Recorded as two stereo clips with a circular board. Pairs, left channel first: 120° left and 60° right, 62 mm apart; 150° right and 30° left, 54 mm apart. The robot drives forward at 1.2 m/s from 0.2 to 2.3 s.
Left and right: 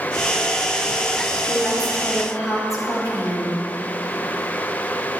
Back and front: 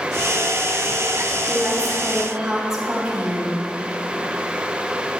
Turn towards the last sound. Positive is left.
turn(degrees=110)